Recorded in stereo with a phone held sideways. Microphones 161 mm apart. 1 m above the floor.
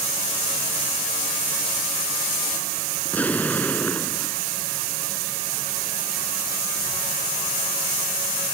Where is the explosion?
10° left (ahead or behind).